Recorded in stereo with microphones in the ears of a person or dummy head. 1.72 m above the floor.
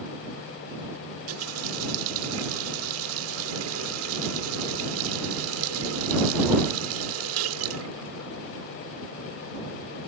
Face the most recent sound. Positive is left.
turn(degrees=-75)  # may be behind; listen again after turning